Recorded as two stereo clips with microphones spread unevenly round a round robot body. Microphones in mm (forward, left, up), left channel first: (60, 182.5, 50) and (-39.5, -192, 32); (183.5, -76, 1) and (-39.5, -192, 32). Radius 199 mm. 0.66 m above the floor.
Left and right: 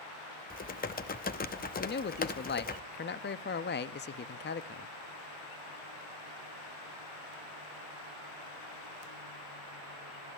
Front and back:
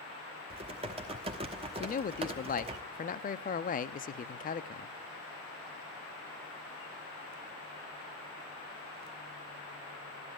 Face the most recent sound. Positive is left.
turn(degrees=25)